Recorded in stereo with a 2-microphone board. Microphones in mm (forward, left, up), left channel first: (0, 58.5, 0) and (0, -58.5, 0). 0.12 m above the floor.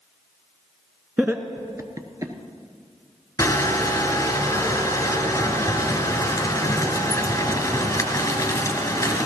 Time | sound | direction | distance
1.2 | laughter | 10° right (ahead or behind) | 1.1 m
3.4 | crushing | 25° left (ahead or behind) | 1.9 m